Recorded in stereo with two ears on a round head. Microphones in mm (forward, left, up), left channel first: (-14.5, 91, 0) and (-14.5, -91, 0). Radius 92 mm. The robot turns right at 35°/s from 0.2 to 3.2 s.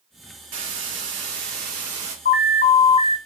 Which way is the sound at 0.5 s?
90° right.